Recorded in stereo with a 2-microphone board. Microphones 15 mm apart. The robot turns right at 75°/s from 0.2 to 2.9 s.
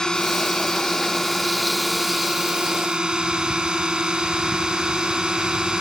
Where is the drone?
60° left; by 5.8 s 95° right.